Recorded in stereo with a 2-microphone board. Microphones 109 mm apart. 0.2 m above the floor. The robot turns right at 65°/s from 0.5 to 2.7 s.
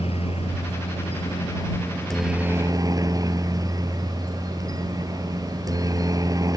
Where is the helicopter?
70° left; by 6.6 s 145° right.